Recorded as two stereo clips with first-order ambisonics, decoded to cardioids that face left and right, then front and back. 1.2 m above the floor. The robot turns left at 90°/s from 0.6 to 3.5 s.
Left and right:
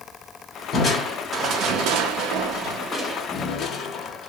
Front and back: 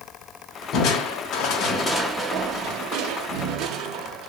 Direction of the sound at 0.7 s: 35° left.